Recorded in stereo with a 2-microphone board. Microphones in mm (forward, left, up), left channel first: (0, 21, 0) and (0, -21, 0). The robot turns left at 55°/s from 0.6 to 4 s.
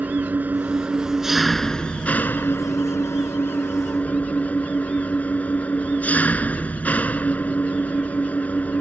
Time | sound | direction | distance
0.0 | an engine running | 135° right | ?